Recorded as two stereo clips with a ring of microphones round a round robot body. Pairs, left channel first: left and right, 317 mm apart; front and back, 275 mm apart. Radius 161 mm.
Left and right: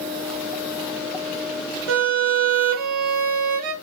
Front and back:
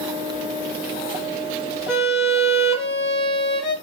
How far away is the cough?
No cough in this recording.